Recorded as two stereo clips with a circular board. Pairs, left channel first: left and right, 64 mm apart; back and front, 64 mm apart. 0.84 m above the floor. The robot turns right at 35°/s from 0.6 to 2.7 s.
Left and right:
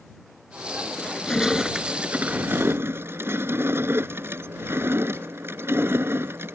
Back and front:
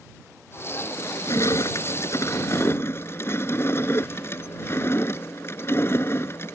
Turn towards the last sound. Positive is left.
turn(degrees=-135)